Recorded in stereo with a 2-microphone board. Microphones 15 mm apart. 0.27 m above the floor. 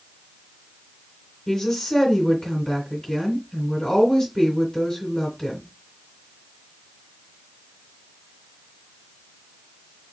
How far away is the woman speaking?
About 2 m.